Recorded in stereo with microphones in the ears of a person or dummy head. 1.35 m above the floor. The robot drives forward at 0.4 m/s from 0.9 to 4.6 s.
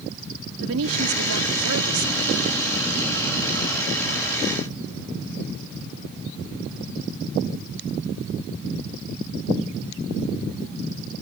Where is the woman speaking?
75° right (ahead or behind); by 2.3 s 85° right.